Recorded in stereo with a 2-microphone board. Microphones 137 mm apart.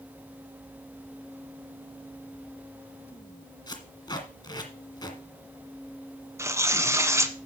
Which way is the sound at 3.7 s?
30° left (ahead or behind).